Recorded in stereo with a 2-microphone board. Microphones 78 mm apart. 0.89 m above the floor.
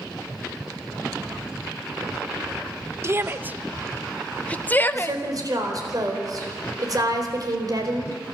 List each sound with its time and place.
3.0 s a shout: 35° right (ahead or behind), 0.8 m; by 5.2 s 30° left (ahead or behind), 1.1 m
4.9 s a woman speaking: 50° right (ahead or behind), 4 m